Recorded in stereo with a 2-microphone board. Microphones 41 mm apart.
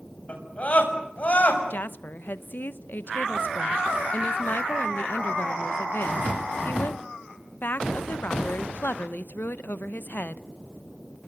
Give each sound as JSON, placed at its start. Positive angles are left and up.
{"t": 0.3, "sound": "a scream", "side_deg": 35, "distance_m": 7.5}
{"t": 1.7, "sound": "a woman speaking", "side_deg": 50, "distance_m": 1.0}